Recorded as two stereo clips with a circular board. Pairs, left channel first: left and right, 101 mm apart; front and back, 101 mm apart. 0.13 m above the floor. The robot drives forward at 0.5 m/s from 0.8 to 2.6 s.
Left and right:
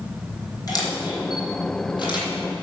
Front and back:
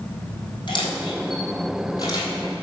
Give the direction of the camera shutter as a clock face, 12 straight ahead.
11 o'clock.